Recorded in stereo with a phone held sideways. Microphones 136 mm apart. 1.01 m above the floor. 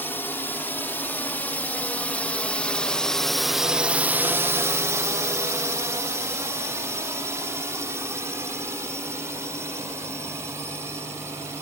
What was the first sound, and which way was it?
A drone, 15° left (ahead or behind).